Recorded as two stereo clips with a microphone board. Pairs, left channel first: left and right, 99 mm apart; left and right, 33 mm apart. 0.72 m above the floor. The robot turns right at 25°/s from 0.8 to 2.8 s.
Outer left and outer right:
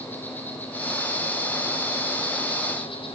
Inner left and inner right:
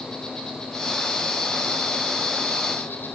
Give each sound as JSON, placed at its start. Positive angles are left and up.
{"t": 0.0, "sound": "an insect", "azimuth_deg": 20, "distance_m": 5.0}